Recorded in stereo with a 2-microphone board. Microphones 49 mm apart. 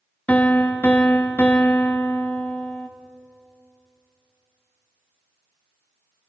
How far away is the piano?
About 0.9 m.